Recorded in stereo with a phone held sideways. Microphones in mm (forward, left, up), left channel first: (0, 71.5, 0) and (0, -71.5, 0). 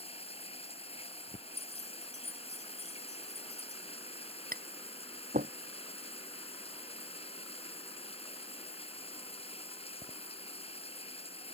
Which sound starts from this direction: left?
Running water, at 0.0 s.